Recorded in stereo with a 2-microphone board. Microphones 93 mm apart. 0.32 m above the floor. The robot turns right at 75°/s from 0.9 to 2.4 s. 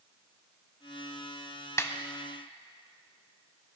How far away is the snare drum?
About 0.7 m.